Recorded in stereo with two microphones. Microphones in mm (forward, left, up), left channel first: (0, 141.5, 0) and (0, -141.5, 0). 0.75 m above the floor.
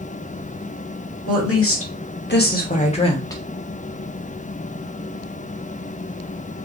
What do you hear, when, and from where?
1.3 s a woman speaking: 55° left (ahead or behind), 1.6 m; by 3.4 s 10° left (ahead or behind), 1.1 m